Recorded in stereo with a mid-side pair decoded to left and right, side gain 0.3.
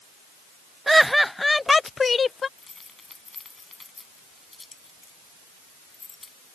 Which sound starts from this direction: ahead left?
Keys jangling, at 2.6 s.